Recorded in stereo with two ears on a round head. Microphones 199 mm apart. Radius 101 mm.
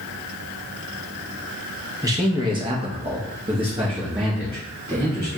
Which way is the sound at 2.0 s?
15° right (ahead or behind).